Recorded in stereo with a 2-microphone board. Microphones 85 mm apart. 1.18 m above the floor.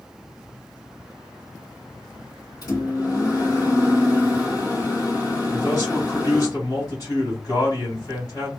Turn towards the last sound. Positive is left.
turn(degrees=45)  # may be behind; listen again after turning